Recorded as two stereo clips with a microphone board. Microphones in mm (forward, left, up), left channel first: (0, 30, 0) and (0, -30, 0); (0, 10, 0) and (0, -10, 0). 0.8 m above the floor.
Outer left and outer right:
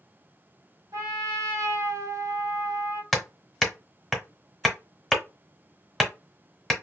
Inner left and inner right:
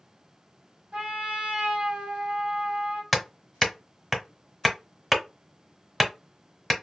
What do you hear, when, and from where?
0.9 s a trumpet: 55° right (ahead or behind), 0.9 m
3.1 s hammering: 5° left (ahead or behind), 1.0 m